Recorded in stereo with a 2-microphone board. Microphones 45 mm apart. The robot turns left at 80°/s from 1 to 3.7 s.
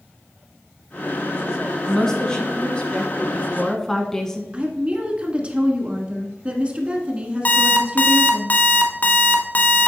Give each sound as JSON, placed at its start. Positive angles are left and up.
{"t": 1.9, "sound": "a woman speaking", "side_deg": 5, "distance_m": 1.1}
{"t": 4.5, "sound": "a woman speaking", "side_deg": -25, "distance_m": 1.3}
{"t": 7.5, "sound": "an alarm clock", "side_deg": 35, "distance_m": 0.9}